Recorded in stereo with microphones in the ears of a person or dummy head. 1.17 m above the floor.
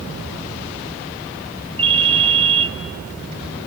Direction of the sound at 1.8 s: 35° right (ahead or behind).